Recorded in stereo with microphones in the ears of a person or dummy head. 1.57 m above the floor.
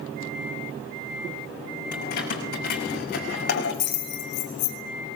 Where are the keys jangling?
60° left (ahead or behind), 6.5 m; by 4.8 s 70° left (ahead or behind), 3.5 m.